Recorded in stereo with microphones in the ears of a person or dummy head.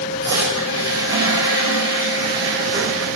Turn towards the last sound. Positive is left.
turn(degrees=-20)  # may be behind; listen again after turning